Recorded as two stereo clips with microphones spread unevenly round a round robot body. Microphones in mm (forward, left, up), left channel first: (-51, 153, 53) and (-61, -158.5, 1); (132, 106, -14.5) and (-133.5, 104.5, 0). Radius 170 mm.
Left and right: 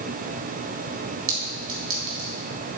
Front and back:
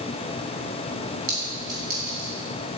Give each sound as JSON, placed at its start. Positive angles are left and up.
{"t": 1.3, "sound": "a clink", "azimuth_deg": -140, "distance_m": 3.5}